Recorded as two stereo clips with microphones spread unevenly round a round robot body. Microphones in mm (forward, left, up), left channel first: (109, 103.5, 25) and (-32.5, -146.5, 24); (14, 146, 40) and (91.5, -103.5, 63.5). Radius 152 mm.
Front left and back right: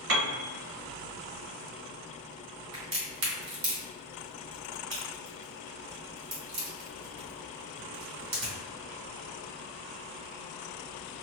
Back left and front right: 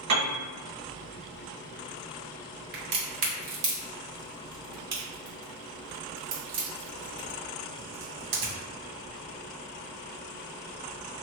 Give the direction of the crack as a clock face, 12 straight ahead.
3 o'clock.